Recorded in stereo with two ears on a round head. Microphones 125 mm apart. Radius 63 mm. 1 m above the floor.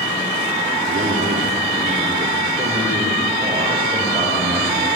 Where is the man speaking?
65° right (ahead or behind), 2.5 m; by 4.9 s 30° right (ahead or behind), 7 m.